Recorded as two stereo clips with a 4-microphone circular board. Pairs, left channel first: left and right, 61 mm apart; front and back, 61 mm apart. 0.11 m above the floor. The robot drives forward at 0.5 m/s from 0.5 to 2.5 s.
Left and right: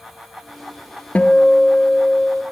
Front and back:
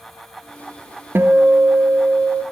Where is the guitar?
145° left, 0.6 m; by 2.4 s 165° left, 1.1 m.